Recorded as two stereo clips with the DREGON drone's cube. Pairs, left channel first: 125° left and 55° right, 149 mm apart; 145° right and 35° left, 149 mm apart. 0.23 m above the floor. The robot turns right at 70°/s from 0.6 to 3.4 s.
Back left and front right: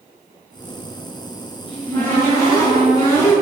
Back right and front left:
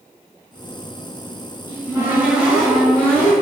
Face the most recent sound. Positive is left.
turn(degrees=175)